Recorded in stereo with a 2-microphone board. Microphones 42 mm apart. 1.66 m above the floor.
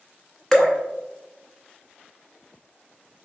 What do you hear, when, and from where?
0.5 s dripping: 15° left (ahead or behind), 0.7 m